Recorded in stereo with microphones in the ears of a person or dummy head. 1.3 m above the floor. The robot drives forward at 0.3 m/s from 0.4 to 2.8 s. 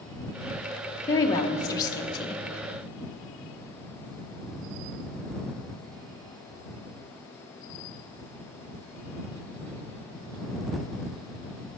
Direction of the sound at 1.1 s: 15° left (ahead or behind).